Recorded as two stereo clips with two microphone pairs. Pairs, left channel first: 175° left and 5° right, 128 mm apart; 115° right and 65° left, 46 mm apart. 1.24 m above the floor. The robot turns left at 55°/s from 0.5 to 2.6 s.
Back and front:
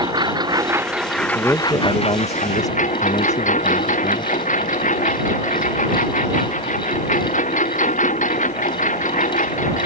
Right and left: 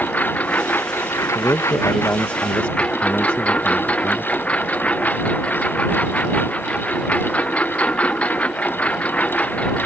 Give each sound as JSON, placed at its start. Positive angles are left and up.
{"t": 0.0, "sound": "a lawn mower", "azimuth_deg": -60}
{"t": 1.4, "sound": "a man speaking", "azimuth_deg": -100}